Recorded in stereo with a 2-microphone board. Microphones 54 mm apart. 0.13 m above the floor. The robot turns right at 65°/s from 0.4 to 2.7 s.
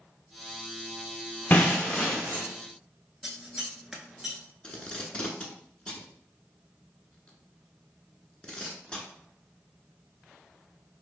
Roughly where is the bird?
No bird in this recording.